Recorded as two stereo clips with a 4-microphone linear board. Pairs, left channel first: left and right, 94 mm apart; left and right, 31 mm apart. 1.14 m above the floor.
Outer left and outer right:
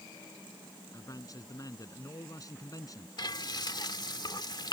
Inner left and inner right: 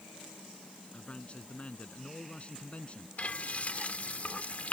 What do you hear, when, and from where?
0.9 s a man speaking: 40° left (ahead or behind)
3.2 s frying: 50° left (ahead or behind)